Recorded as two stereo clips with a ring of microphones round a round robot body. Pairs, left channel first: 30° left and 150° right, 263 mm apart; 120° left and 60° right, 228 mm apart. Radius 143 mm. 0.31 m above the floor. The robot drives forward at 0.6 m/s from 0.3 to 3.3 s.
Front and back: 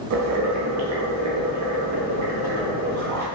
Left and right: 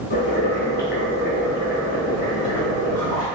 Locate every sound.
0.1 s boiling: 175° left, 0.6 m; by 3.2 s straight behind, 2.5 m